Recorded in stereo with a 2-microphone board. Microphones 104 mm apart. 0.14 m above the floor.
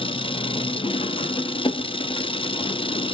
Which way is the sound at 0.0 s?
65° left (ahead or behind).